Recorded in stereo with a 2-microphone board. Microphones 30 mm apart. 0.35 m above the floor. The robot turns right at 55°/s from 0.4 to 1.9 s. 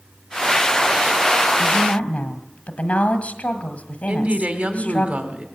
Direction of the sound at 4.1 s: 55° right (ahead or behind).